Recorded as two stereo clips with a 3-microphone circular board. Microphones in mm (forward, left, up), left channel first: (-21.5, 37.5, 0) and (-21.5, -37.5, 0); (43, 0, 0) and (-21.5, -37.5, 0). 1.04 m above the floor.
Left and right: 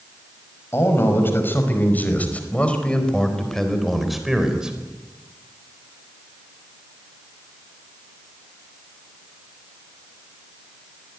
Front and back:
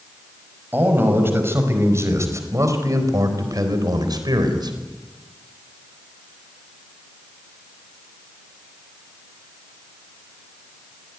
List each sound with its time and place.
0.7 s a man speaking: 145° left, 5 m; by 4.8 s 170° right, 4 m